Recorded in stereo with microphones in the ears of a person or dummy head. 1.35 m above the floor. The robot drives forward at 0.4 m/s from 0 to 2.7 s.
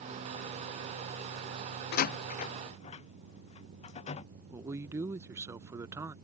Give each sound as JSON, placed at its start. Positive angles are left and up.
{"t": 1.9, "sound": "a door slam", "side_deg": 55}
{"t": 4.5, "sound": "a man speaking", "side_deg": -10}